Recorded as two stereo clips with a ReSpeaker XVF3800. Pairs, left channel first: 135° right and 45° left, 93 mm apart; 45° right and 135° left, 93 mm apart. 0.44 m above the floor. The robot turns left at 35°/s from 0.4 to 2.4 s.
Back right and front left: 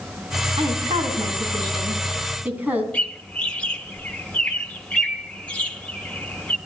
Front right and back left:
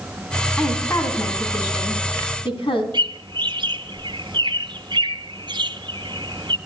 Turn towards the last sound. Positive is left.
turn(degrees=150)